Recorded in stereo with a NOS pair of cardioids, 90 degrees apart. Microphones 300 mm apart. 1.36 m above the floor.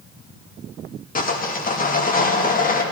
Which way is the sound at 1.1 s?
30° left.